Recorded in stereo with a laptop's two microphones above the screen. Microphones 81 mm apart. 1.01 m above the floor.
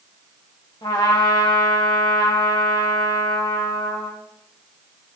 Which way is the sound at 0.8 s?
70° left (ahead or behind).